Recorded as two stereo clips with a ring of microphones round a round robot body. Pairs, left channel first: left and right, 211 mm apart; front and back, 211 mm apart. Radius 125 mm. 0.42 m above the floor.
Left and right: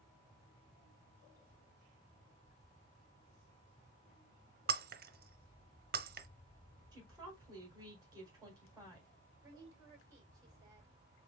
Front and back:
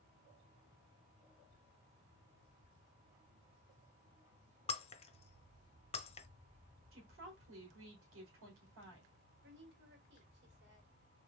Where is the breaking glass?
55° right, 0.6 m.